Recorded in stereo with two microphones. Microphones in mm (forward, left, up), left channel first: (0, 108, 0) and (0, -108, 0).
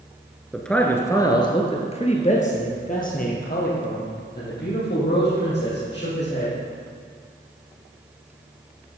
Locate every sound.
0.5 s a man speaking: centre (ahead or behind), 1.3 m; by 6.5 s 60° left (ahead or behind), 4.5 m